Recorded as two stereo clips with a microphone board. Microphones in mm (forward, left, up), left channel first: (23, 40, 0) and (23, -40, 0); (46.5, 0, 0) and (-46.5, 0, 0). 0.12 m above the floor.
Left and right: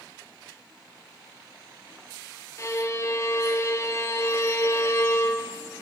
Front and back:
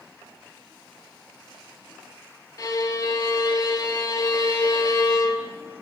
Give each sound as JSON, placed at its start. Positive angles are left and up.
{"t": 2.6, "sound": "a violin", "azimuth_deg": 45, "distance_m": 0.6}